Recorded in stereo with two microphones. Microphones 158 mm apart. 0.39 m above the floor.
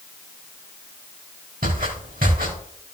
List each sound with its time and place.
1.6 s footsteps: 65° right (ahead or behind), 4 m